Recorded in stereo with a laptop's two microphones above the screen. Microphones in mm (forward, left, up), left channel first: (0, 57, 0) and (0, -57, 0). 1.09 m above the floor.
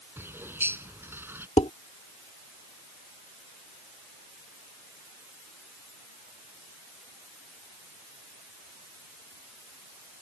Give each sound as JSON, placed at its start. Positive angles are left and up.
{"t": 0.2, "sound": "a bird", "side_deg": -20}
{"t": 1.6, "sound": "dishes clattering", "side_deg": 70}